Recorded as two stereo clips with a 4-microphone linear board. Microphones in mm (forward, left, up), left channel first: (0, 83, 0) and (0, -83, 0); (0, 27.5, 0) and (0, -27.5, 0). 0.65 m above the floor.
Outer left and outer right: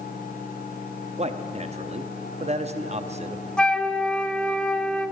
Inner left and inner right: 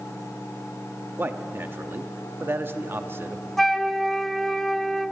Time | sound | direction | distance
1.2 | a man speaking | 40° right (ahead or behind) | 0.7 m
3.6 | a flute | 5° left (ahead or behind) | 0.6 m